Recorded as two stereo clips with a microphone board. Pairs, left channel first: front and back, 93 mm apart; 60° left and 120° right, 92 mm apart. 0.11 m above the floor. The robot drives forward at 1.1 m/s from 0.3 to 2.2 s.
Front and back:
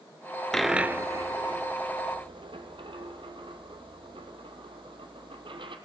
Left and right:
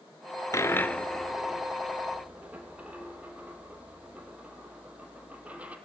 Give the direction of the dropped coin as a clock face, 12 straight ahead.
9 o'clock.